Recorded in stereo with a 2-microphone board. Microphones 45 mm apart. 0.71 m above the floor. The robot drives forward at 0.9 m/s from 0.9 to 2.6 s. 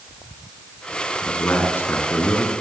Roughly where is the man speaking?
Left.